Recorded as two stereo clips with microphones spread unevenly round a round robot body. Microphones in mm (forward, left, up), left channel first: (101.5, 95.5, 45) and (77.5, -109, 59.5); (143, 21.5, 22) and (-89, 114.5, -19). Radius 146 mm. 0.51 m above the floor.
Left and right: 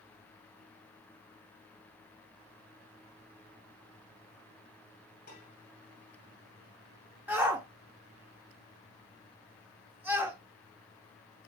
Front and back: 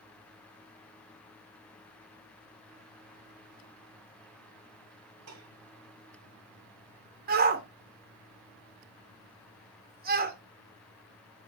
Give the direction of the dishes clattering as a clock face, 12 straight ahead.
7 o'clock.